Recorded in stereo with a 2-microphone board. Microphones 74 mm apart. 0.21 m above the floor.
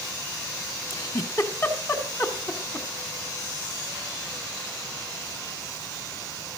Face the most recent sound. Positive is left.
turn(degrees=45)  # may be behind; listen again after turning